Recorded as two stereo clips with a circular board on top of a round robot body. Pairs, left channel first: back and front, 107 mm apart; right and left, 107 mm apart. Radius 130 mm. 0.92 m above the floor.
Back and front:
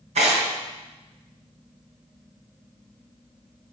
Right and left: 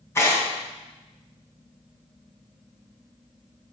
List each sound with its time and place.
0.1 s tearing paper: 25° right, 2.5 m